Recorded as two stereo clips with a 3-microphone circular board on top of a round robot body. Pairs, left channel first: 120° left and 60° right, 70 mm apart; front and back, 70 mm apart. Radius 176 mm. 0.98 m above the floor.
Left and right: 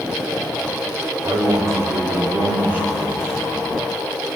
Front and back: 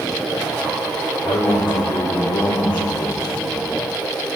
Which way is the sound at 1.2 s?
25° right.